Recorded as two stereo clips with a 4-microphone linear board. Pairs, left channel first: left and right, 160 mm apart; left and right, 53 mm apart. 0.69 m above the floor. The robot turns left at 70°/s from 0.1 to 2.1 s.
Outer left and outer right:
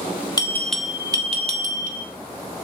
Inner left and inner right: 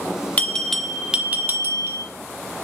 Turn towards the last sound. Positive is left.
turn(degrees=-90)